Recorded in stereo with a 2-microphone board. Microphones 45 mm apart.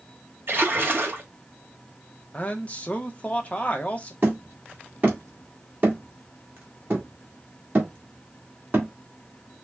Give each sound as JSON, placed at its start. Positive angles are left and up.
{"t": 0.5, "sound": "a splash", "side_deg": -50, "distance_m": 1.8}
{"t": 2.3, "sound": "a man speaking", "side_deg": 30, "distance_m": 0.9}
{"t": 4.2, "sound": "hammering", "side_deg": -40, "distance_m": 1.9}